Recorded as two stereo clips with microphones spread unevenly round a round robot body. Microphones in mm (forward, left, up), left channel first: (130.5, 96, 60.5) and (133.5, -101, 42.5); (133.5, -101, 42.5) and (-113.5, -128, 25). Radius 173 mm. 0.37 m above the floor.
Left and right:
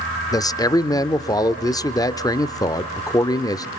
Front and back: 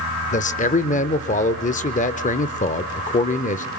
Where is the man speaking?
25° left, 0.9 m.